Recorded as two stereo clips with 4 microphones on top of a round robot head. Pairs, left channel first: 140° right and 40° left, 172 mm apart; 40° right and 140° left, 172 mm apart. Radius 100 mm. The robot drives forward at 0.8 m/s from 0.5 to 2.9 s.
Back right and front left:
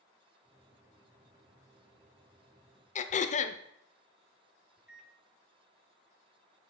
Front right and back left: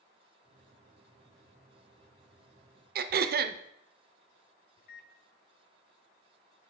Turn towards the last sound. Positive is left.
turn(degrees=-45)